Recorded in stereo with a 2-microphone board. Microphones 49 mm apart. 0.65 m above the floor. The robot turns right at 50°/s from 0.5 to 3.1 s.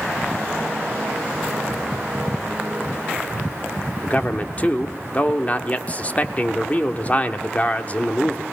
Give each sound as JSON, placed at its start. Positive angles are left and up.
{"t": 4.0, "sound": "a man speaking", "side_deg": 30, "distance_m": 1.3}